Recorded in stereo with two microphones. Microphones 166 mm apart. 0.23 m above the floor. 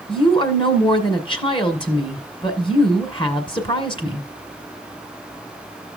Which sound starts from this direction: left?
A woman speaking, at 0.1 s.